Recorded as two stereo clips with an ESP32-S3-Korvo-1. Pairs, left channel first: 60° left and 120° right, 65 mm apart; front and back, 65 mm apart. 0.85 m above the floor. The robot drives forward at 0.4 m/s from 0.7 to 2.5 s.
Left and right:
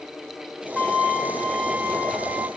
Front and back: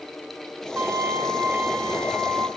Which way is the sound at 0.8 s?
135° left.